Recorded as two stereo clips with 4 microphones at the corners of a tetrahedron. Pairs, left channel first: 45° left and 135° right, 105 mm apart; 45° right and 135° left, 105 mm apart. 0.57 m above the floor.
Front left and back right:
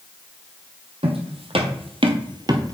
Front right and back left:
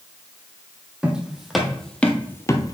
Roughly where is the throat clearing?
I don't hear throat clearing.